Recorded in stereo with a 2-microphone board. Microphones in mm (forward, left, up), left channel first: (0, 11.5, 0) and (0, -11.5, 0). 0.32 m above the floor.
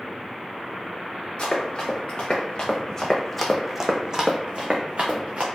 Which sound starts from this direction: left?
Running footsteps, at 1.4 s.